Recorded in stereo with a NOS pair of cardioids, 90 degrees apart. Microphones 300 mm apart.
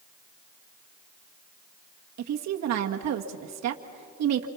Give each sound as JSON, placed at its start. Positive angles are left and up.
{"t": 2.2, "sound": "a woman speaking", "azimuth_deg": -65, "distance_m": 1.8}